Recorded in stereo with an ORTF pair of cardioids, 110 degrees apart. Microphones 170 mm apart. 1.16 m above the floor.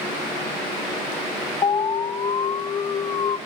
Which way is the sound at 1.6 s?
25° left.